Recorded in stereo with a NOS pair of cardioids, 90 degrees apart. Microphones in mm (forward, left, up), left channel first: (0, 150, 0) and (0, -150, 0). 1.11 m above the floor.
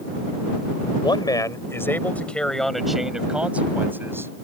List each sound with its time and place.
1.0 s a man speaking: 15° left; by 4.3 s 10° right